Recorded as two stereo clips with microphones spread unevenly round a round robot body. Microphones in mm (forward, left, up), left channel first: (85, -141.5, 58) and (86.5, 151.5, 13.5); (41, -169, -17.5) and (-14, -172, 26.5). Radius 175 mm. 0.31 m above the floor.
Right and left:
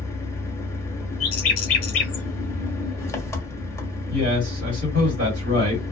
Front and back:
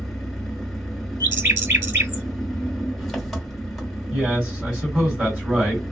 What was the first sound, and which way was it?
An engine running, 5° right.